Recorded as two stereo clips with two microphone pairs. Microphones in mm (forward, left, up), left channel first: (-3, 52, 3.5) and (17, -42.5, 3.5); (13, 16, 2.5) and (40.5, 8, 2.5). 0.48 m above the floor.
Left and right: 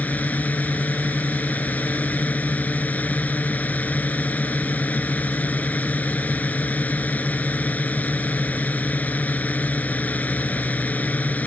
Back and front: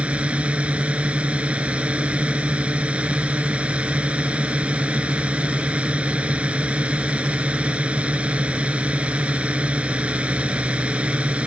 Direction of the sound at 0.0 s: 30° left.